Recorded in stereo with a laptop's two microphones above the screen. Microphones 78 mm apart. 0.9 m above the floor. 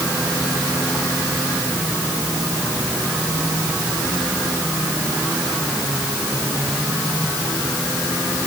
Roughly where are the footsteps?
I don't hear footsteps.